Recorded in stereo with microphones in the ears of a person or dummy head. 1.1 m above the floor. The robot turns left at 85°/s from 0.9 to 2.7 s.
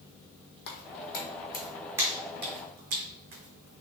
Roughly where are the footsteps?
Left.